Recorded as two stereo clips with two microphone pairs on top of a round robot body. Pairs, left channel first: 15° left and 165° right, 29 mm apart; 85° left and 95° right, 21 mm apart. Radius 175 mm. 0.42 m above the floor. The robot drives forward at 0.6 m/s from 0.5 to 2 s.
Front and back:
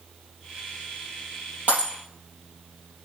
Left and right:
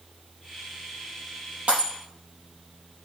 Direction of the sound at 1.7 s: 120° right.